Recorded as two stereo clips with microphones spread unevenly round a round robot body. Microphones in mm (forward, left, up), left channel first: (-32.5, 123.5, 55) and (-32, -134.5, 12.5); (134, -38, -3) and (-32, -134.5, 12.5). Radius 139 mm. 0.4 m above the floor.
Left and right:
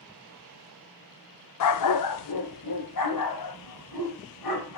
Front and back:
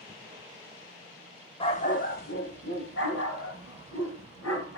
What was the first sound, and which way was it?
A dog barking, 95° left.